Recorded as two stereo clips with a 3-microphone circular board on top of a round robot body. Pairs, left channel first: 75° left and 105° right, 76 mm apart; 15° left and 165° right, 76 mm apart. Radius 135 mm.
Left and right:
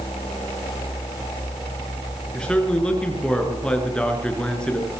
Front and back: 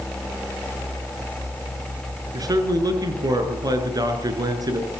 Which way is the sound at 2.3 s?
155° left.